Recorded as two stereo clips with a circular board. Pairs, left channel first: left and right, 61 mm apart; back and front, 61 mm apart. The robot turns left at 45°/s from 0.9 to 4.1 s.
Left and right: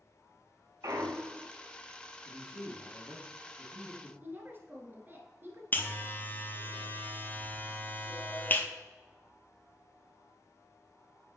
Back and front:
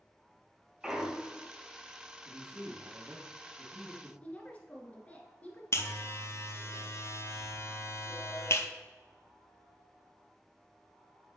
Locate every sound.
0.8 s a clunk: 80° right, 0.7 m; by 1.5 s 110° right, 0.7 m
2.2 s a man speaking: 20° right, 2.5 m; by 4.1 s 105° right, 2.5 m
4.2 s a woman speaking: 125° right, 1.4 m
5.7 s a buzzer: 145° left, 0.8 m